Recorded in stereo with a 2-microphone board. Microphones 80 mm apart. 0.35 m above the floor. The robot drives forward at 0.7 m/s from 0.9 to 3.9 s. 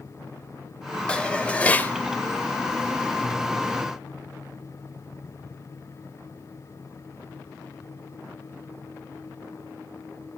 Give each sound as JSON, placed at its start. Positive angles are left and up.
{"t": 1.1, "sound": "dishes clattering", "side_deg": 10, "distance_m": 0.9}